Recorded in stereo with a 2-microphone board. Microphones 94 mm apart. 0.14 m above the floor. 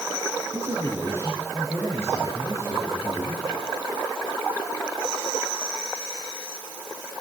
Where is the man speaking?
30° right (ahead or behind), 7 m.